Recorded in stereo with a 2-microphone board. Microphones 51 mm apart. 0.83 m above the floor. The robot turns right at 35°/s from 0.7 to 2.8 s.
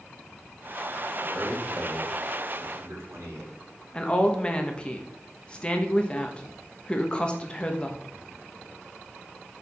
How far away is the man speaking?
About 2.5 m.